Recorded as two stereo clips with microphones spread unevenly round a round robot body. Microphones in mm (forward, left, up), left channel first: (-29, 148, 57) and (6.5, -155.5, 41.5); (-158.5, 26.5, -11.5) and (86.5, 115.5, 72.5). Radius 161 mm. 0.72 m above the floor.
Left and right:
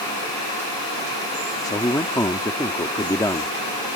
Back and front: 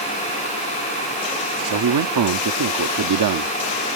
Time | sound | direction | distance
1.6 | a man speaking | 15° left | ?